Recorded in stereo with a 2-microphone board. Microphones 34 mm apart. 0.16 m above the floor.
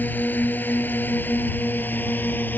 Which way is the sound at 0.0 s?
60° left (ahead or behind).